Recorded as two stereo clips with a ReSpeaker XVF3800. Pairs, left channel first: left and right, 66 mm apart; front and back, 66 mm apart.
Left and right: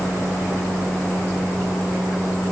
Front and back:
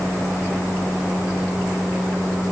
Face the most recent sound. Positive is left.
No sound to turn to.